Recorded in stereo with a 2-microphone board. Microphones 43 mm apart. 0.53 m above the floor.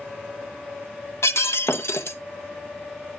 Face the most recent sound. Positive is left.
turn(degrees=80)